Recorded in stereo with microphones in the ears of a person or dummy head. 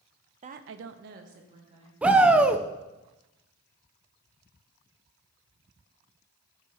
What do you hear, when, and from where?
0.4 s a woman speaking: 35° right (ahead or behind), 0.6 m
2.0 s a shout: 10° right (ahead or behind), 0.5 m